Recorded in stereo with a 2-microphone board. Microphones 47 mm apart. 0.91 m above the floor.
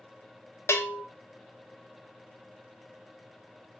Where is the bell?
65° left (ahead or behind), 0.6 m.